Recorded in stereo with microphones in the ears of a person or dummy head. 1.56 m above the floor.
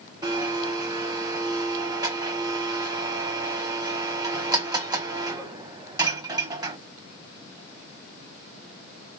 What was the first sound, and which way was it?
A blender, 20° right (ahead or behind).